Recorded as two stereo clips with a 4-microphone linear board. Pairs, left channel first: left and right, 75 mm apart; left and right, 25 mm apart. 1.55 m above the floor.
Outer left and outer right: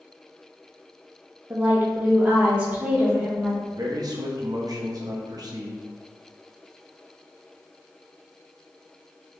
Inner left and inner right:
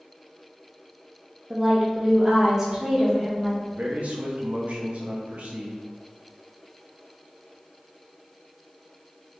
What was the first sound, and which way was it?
A woman speaking, 30° right (ahead or behind).